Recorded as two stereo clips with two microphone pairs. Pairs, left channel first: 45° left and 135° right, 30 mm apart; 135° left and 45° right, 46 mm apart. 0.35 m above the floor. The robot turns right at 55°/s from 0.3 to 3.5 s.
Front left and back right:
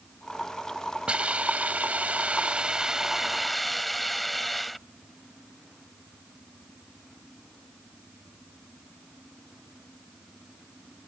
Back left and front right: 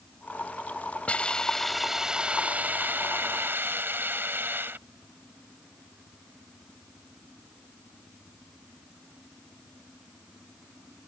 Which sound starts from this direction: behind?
A hiss, at 1.1 s.